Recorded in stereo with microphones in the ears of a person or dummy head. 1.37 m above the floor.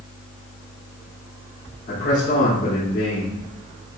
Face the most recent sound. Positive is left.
turn(degrees=50)  # may be behind; listen again after turning